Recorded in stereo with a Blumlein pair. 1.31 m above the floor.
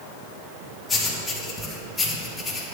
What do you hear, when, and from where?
0.9 s writing: 10° left, 3 m